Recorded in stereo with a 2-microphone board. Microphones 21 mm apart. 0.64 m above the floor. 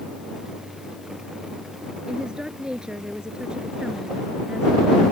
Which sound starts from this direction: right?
A woman speaking, at 2.1 s.